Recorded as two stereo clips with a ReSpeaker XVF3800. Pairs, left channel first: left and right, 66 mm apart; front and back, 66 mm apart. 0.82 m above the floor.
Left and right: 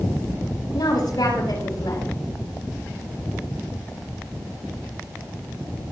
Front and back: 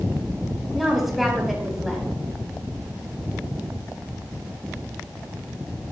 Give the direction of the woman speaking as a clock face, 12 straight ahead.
9 o'clock.